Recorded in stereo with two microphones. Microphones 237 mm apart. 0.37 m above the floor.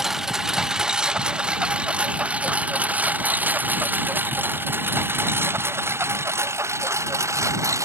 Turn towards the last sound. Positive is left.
turn(degrees=-10)  # may be behind; listen again after turning